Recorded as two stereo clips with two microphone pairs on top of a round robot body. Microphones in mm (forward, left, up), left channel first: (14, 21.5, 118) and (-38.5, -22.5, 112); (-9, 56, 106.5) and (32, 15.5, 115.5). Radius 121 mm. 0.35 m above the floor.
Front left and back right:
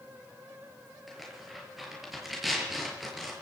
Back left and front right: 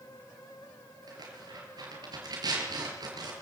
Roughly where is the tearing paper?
Ahead right.